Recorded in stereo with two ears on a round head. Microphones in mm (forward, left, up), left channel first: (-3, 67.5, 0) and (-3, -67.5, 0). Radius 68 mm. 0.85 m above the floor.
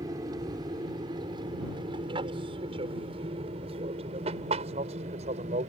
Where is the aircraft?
25° right (ahead or behind); by 5.7 s 45° right (ahead or behind).